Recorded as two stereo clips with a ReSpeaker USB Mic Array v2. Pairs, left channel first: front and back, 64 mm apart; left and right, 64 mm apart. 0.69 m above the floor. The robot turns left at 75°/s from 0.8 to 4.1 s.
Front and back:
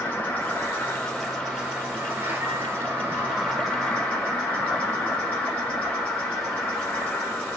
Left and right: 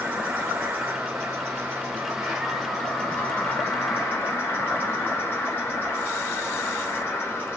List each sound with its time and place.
0.0 s an insect: 50° right, 1.5 m; by 7.6 s 60° left, 1.5 m